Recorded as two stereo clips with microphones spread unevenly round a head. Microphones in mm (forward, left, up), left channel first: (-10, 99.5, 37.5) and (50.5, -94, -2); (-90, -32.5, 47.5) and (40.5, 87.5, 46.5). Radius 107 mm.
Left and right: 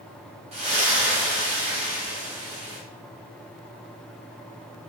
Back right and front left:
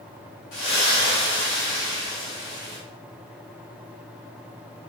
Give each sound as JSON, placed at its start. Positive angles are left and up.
{"t": 0.5, "sound": "a splash", "azimuth_deg": -135, "distance_m": 1.5}